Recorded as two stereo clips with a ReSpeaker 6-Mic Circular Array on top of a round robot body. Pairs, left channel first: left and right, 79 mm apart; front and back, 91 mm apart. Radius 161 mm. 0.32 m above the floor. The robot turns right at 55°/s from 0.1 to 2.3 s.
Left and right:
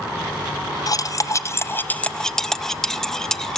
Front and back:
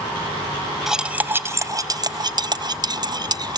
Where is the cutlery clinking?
95° left, 0.6 m; by 3.6 s 175° left, 0.6 m.